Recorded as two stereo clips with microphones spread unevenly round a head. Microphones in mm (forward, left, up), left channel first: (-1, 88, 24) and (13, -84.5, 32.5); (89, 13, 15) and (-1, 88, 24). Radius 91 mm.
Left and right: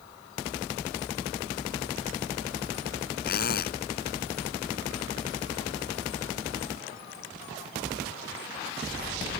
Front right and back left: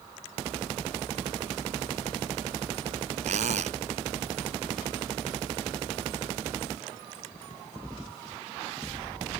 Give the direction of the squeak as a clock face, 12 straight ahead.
8 o'clock.